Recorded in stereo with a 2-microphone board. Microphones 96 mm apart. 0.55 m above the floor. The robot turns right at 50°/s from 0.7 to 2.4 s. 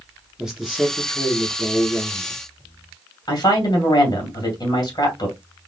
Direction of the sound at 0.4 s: 10° right.